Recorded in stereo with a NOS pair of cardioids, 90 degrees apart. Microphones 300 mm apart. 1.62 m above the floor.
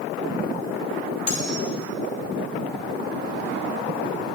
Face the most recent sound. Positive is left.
turn(degrees=55)